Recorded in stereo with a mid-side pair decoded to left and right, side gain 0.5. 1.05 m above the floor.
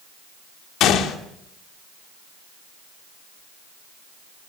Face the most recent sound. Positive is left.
turn(degrees=70)